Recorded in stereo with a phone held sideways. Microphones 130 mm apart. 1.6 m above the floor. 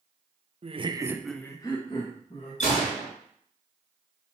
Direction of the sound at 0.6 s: 50° right (ahead or behind).